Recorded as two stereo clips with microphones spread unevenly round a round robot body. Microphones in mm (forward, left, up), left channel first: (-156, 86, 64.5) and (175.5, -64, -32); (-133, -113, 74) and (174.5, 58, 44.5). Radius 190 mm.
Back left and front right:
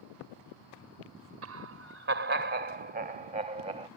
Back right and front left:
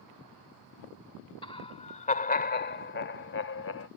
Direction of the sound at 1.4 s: 75° right.